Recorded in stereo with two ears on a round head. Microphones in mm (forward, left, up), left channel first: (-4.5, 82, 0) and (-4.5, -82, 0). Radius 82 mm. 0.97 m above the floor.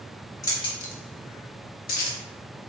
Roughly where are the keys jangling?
Centre.